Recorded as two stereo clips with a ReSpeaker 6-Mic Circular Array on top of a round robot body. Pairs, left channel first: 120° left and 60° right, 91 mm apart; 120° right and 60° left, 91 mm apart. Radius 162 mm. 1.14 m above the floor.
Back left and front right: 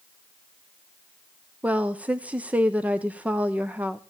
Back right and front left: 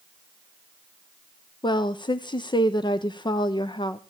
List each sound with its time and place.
1.6 s a woman speaking: 130° right, 0.9 m